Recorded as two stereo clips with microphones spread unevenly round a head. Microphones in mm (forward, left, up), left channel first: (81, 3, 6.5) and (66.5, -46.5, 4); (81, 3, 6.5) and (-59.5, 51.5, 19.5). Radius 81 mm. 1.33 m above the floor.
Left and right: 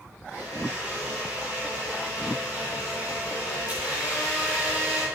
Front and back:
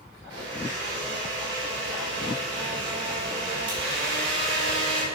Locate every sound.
0.3 s a blender: 155° left, 4 m